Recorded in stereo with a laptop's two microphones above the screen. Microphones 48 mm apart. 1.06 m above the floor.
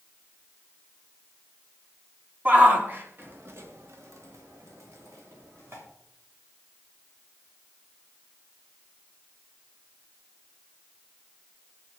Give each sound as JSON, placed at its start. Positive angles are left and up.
{"t": 2.5, "sound": "a shout", "side_deg": -35, "distance_m": 2.5}